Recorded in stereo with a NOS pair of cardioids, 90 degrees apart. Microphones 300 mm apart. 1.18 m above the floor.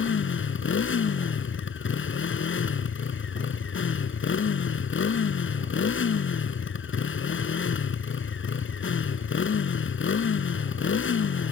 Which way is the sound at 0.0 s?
40° left.